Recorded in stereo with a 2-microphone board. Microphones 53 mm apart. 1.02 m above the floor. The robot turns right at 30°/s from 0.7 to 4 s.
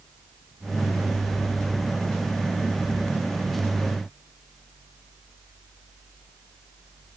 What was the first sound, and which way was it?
Only background noise.